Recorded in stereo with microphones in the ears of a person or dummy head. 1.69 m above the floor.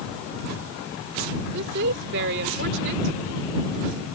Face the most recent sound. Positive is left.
turn(degrees=-60)  # may be behind; listen again after turning